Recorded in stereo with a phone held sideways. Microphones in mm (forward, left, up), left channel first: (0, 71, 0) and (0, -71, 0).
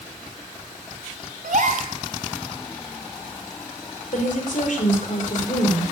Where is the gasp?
70° right (ahead or behind), 3.5 m.